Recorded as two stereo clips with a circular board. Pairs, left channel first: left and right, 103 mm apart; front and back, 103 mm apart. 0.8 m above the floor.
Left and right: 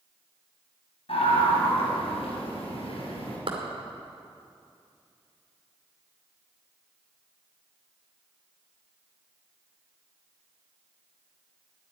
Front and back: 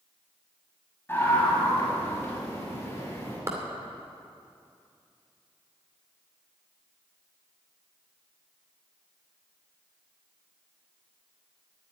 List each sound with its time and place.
1.1 s a scream: 70° left, 6 m; by 3.4 s 65° left, 7 m
3.5 s a clap: 120° right, 2.5 m